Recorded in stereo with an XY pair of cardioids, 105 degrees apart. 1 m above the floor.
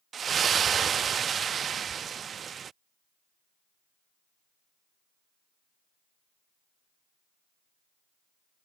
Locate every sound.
0.1 s a splash: 50° right